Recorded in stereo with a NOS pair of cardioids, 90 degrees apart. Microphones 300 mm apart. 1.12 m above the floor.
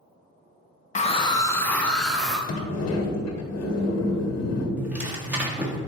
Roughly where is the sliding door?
Ahead left.